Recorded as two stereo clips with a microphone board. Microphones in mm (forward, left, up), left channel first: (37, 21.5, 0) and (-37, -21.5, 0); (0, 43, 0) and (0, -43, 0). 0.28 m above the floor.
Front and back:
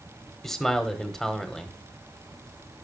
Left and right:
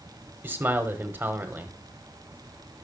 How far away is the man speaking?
About 1.1 m.